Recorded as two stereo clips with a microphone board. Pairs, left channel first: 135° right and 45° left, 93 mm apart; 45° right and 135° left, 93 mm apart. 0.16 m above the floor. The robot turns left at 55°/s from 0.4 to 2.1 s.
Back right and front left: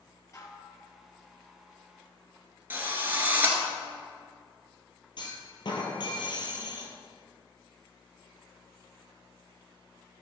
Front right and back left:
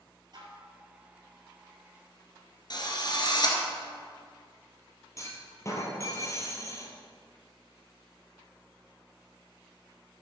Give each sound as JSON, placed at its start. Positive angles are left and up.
{"t": 0.3, "sound": "dishes clattering", "azimuth_deg": 170, "distance_m": 2.0}
{"t": 2.7, "sound": "a drill", "azimuth_deg": -20, "distance_m": 1.7}
{"t": 5.2, "sound": "a clunk", "azimuth_deg": -100, "distance_m": 1.9}